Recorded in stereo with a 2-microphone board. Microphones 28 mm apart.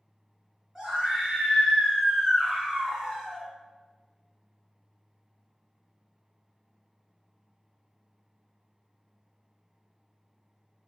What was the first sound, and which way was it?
A scream, 15° right (ahead or behind).